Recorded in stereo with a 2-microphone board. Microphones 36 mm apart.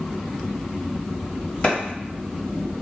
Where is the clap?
35° left (ahead or behind), 1.3 m.